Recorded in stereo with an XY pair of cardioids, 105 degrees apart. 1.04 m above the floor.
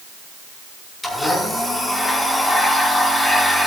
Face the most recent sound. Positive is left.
turn(degrees=10)